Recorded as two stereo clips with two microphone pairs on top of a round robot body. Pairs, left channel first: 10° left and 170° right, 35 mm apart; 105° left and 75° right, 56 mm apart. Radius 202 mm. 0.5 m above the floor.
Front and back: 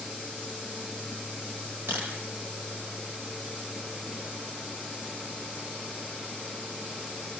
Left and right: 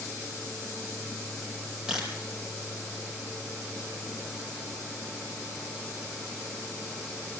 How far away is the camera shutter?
About 5 m.